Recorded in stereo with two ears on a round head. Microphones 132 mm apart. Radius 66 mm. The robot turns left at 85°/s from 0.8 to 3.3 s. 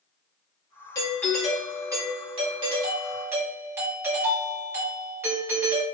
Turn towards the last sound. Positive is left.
turn(degrees=-155)